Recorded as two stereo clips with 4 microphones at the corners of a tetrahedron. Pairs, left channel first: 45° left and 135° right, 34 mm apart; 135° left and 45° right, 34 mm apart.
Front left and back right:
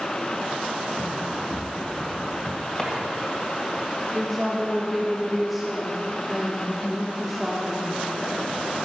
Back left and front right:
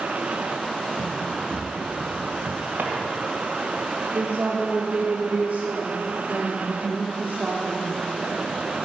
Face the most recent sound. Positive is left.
turn(degrees=-50)